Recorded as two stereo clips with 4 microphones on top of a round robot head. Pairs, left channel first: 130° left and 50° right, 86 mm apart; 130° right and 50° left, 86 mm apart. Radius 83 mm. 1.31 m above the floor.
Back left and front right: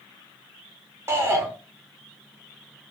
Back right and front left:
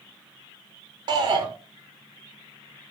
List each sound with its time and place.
1.1 s a shout: 10° left, 1.2 m